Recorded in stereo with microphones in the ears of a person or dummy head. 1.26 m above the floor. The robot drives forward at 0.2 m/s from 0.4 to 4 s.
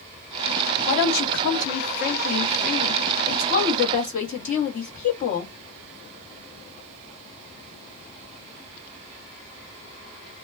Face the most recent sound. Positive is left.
turn(degrees=40)  # may be behind; listen again after turning